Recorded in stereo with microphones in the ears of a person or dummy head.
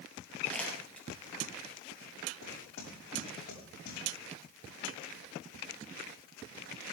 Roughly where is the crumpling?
Centre.